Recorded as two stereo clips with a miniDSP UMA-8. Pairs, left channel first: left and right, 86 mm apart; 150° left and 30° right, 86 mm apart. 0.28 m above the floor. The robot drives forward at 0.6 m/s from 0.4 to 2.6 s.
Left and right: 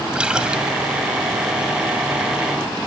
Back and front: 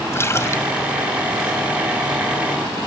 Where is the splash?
165° right, 1.8 m.